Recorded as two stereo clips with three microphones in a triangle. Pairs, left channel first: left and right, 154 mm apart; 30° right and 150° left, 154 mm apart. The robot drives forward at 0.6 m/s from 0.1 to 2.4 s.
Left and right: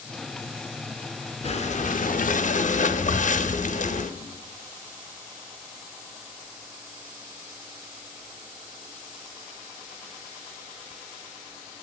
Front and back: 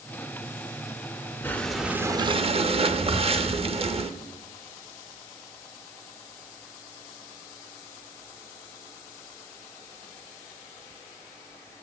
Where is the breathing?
45° left, 0.7 m; by 4.1 s 110° left, 0.5 m.